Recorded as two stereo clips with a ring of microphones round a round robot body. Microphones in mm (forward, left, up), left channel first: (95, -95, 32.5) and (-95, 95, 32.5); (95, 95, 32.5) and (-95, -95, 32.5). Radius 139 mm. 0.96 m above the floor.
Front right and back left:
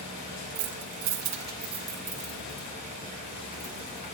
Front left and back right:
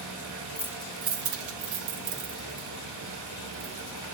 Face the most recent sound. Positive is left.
turn(degrees=-110)